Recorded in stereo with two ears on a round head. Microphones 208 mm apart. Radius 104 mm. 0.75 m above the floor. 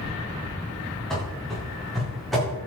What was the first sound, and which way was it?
Running footsteps, centre (ahead or behind).